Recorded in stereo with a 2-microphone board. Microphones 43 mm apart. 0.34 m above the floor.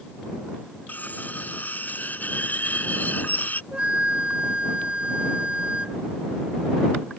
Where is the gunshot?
No gunshot in this recording.